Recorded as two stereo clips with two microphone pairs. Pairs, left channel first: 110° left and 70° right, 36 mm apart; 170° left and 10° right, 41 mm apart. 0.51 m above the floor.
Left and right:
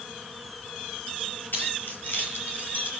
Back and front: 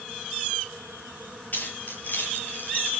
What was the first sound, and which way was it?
Keys jangling, 130° left.